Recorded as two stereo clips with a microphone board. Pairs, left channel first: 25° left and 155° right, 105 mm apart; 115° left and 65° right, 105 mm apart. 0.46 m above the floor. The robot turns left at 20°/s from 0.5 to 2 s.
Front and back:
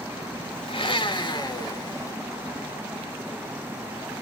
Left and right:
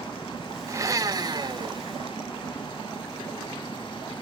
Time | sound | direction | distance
0.7 | a blender | 5° right | 0.7 m